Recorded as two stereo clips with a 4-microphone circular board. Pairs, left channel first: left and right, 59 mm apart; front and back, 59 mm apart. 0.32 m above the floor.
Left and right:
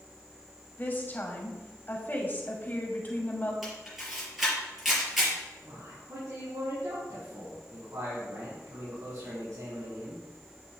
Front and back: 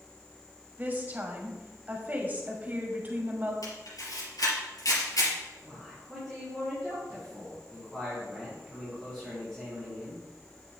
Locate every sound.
0.8 s a woman speaking: 130° left, 1.9 m
3.6 s a camera shutter: 5° right, 4.5 m
5.6 s a man speaking: 85° right, 4 m